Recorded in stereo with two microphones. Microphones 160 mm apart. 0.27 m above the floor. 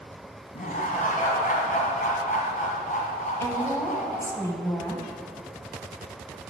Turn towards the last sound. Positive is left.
turn(degrees=20)  # may be behind; listen again after turning